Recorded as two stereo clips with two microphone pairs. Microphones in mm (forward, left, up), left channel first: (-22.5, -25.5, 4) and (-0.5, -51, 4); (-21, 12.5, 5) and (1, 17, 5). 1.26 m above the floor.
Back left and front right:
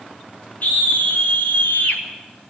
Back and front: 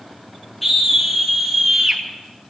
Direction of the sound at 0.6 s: 100° left.